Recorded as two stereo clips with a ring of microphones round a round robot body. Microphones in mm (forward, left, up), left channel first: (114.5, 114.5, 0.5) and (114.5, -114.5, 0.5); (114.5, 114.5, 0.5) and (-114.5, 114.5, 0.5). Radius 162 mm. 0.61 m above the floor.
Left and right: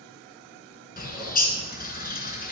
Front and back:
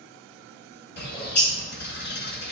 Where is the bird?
40° left, 1.8 m.